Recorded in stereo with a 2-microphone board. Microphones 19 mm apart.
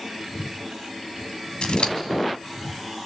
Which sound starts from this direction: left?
Scissors, at 1.6 s.